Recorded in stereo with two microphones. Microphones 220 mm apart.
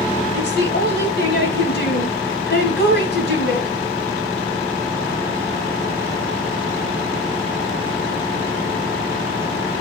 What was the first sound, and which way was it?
A woman speaking, 50° left (ahead or behind).